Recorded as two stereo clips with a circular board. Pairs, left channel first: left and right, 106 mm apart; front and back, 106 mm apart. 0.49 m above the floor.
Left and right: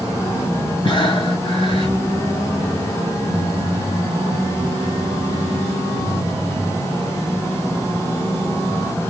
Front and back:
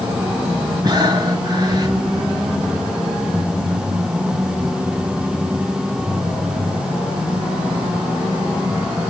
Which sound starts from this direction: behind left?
Breathing, at 0.8 s.